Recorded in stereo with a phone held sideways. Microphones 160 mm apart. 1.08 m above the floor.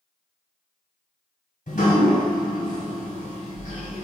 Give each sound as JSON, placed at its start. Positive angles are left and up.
{"t": 1.7, "sound": "dripping", "side_deg": 55, "distance_m": 1.6}